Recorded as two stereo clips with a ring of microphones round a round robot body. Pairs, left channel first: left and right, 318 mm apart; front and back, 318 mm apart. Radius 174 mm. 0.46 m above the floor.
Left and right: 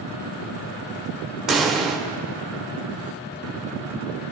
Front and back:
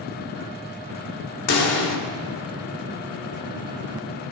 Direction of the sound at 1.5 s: Straight ahead.